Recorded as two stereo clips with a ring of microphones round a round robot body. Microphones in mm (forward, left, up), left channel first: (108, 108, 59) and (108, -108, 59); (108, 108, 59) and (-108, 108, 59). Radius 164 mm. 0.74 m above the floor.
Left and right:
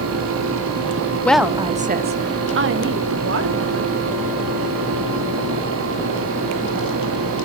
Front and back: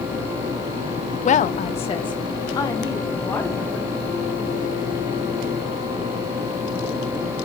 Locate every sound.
1.2 s a woman speaking: 15° left, 0.6 m; by 4.0 s 85° right, 1.9 m